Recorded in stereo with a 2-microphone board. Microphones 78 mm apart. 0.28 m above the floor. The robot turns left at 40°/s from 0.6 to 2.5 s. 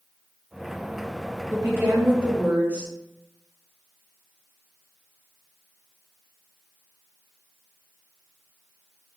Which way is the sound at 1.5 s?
115° right.